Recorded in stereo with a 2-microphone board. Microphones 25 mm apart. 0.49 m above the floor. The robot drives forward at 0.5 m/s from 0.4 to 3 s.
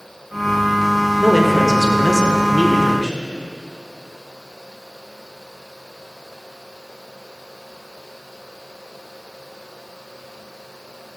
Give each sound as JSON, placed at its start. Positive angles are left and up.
{"t": 1.2, "sound": "a man speaking", "side_deg": 5, "distance_m": 0.9}